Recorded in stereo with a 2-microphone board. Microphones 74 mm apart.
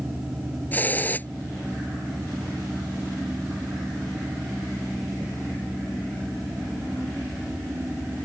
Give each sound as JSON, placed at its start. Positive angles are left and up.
{"t": 0.7, "sound": "a hiss", "side_deg": 25}